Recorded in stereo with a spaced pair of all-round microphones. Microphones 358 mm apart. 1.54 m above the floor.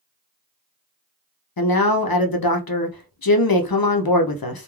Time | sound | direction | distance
1.6 | a man speaking | 80° left | 0.6 m